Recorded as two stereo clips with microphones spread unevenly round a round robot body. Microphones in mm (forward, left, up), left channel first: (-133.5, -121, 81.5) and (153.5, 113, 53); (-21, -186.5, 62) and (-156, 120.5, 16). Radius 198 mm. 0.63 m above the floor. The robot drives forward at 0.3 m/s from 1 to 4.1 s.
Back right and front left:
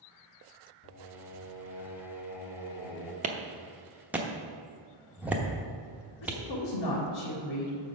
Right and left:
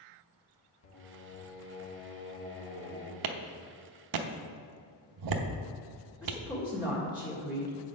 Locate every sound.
0.8 s singing: 95° right, 1.4 m; by 3.1 s 125° right, 1.6 m
3.2 s a clap: 105° left, 0.8 m; by 6.4 s 125° left, 0.9 m
6.2 s a woman speaking: 145° right, 2 m